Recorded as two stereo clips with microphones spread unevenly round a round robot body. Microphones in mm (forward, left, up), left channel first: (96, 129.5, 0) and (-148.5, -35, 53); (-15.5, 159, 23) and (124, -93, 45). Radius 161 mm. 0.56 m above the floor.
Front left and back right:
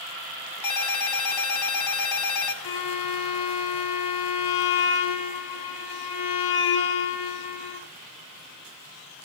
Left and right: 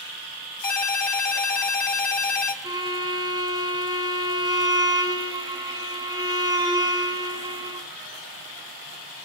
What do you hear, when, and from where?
0.6 s a ringtone: 55° left, 2.5 m
2.6 s a violin: 15° left, 1.6 m